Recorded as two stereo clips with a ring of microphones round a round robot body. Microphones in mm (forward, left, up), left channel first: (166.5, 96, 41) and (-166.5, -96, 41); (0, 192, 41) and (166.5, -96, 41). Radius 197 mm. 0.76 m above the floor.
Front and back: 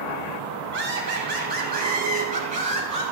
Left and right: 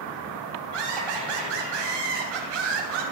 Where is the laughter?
85° right, 6.5 m; by 3.0 s 75° right, 6.5 m.